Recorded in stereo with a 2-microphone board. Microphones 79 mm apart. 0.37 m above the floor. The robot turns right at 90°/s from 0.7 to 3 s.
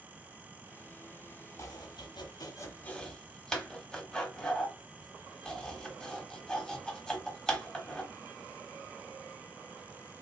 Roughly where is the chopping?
Left.